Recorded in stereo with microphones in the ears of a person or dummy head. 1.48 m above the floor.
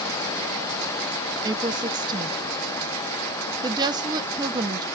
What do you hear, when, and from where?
1.4 s a woman speaking: 25° right (ahead or behind), 0.8 m